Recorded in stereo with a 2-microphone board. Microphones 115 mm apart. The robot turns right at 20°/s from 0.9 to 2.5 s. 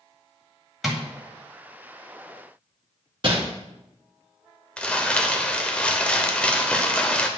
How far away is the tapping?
About 1.9 m.